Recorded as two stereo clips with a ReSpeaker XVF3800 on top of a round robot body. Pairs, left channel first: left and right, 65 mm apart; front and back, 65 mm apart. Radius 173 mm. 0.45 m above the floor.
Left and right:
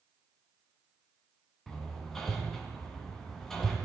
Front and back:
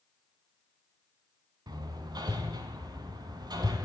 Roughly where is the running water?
No running water in this recording.